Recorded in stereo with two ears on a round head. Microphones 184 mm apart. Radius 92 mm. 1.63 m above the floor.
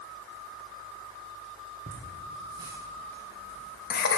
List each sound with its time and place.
1.9 s laughter: 40° right (ahead or behind), 1.0 m; by 4.2 s 55° left (ahead or behind), 0.8 m